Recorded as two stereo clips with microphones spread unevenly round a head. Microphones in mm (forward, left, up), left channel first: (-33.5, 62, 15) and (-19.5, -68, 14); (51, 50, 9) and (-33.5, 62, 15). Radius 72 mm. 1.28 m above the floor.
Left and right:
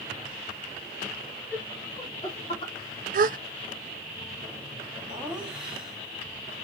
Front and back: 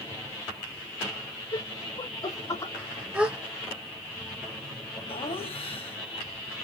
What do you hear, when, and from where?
1.5 s laughter: 15° left, 3 m; by 2.7 s 45° left, 3 m
3.1 s a gasp: 105° right, 0.6 m
5.1 s laughter: straight ahead, 3 m